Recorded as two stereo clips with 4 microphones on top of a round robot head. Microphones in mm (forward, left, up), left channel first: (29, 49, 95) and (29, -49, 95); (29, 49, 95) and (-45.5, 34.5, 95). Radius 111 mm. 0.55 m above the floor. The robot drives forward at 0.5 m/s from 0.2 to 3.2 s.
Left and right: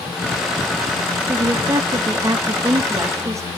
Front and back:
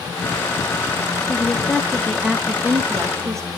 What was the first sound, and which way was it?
A woman speaking, 45° right.